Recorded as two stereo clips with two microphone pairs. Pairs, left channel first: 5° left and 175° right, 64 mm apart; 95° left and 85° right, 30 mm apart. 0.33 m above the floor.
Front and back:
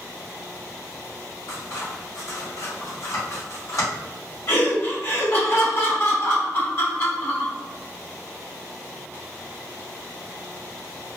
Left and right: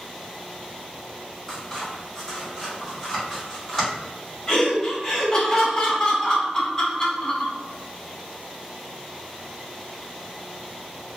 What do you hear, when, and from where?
1.5 s scissors: 15° left, 1.9 m
4.5 s laughter: 30° left, 1.3 m